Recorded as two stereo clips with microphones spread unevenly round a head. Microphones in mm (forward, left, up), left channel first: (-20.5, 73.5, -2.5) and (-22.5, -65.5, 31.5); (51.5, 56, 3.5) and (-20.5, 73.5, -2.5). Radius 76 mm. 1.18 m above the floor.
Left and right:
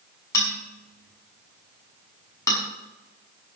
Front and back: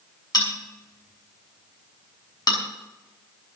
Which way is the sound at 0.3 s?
15° left.